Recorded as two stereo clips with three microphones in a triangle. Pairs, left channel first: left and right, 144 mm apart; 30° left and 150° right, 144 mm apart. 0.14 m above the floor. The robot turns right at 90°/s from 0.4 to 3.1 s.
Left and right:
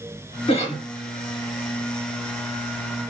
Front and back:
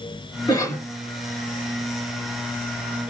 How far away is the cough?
About 1.7 m.